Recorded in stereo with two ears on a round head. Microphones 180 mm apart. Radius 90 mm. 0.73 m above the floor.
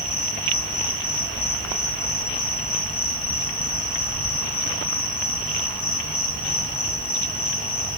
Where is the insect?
35° left (ahead or behind), 3 m.